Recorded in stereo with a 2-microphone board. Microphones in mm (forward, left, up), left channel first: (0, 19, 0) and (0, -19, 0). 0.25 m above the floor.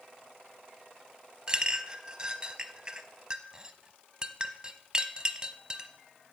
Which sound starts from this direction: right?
A clink, at 1.5 s.